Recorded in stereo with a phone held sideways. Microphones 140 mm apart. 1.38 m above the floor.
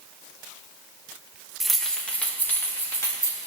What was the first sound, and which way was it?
Keys jangling, centre (ahead or behind).